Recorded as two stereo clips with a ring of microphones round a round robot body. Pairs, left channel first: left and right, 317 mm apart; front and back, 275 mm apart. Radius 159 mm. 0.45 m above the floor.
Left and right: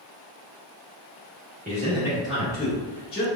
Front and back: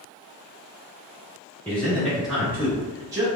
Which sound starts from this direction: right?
A man speaking, at 1.6 s.